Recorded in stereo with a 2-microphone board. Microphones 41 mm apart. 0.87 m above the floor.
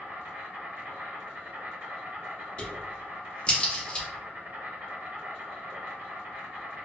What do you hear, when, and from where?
0.0 s an insect: 65° right (ahead or behind), 1.1 m
2.6 s a crack: 25° left (ahead or behind), 0.9 m